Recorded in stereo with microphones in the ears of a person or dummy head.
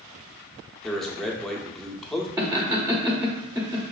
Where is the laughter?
10° right (ahead or behind), 0.8 m.